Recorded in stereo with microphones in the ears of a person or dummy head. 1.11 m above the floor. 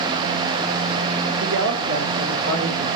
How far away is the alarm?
No alarm in this recording.